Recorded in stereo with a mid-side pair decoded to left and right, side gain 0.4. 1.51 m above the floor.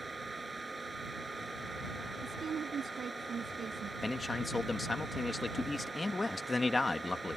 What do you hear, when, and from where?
0.0 s a fan: 25° right
2.2 s a woman speaking: 50° right
4.0 s a man speaking: 25° left